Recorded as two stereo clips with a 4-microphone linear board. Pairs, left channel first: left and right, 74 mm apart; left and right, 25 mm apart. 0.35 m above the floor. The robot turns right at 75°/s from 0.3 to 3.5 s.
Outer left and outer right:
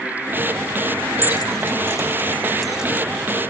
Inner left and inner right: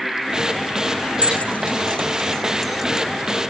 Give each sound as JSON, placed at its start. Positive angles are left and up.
{"t": 1.2, "sound": "keys jangling", "side_deg": 60, "distance_m": 1.4}